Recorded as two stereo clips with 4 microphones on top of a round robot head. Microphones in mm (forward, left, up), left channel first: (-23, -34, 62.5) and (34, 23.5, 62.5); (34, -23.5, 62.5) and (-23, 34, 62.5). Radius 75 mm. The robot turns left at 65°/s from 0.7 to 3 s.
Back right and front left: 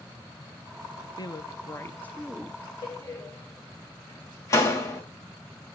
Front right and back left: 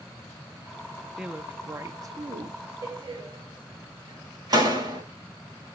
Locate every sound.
1.2 s a woman speaking: 145° right, 1.1 m; by 2.6 s 120° left, 1.1 m
2.8 s a door slam: 175° right, 3 m; by 5.0 s 175° left, 3 m